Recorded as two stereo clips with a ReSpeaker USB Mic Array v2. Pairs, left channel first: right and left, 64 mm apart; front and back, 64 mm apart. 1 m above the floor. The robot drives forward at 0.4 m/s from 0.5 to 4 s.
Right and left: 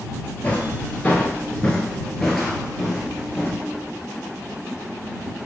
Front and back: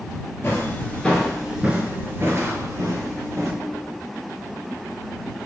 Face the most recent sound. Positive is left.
turn(degrees=175)